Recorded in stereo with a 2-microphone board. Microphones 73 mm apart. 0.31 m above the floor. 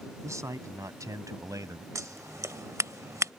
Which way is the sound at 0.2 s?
45° right (ahead or behind).